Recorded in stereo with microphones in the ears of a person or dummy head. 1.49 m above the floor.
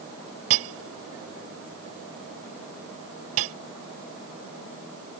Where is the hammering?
70° right (ahead or behind).